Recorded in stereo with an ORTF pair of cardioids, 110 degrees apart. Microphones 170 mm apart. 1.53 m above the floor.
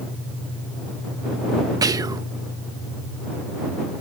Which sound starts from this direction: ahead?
Whispering, at 1.8 s.